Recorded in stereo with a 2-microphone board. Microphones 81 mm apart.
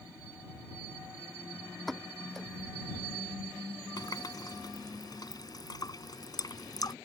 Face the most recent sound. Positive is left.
turn(degrees=55)  # may be behind; listen again after turning